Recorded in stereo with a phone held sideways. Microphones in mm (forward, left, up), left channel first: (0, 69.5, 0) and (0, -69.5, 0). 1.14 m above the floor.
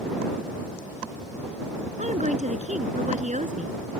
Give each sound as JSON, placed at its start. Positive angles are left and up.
{"t": 2.0, "sound": "a woman speaking", "side_deg": -60}